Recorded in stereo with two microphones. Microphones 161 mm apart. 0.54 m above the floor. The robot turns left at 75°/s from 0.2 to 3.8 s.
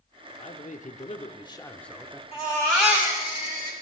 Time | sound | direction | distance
0.4 | a man speaking | 120° left | 0.9 m
2.3 | a baby crying | 35° left | 4.5 m